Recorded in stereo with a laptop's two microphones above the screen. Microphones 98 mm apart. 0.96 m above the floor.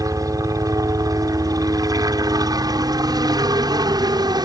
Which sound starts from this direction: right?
A helicopter, at 0.0 s.